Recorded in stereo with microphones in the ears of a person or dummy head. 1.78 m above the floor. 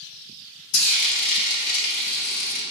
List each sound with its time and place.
0.7 s frying: 50° left (ahead or behind), 0.5 m